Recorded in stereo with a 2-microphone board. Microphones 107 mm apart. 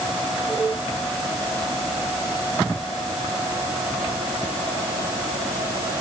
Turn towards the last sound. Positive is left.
No sound to turn to.